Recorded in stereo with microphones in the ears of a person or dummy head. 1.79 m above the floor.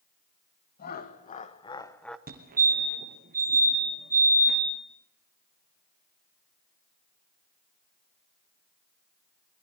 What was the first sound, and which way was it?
Laughter, 45° left (ahead or behind).